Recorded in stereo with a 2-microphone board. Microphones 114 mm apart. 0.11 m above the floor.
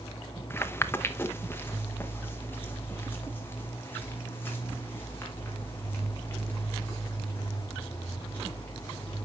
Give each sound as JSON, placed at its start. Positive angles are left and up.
{"t": 0.5, "sound": "footsteps", "side_deg": 20, "distance_m": 0.7}